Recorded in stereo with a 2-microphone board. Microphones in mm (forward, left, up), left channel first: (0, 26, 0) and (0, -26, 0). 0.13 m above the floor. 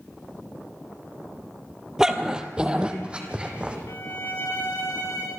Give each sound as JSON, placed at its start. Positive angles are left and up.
{"t": 2.0, "sound": "a dog barking", "side_deg": -10, "distance_m": 1.3}
{"t": 3.9, "sound": "a violin", "side_deg": 75, "distance_m": 5.0}